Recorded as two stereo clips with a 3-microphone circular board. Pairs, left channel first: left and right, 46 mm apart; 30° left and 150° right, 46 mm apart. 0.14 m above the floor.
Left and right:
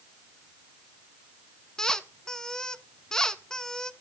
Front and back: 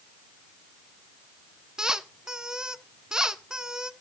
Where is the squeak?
155° left, 0.8 m.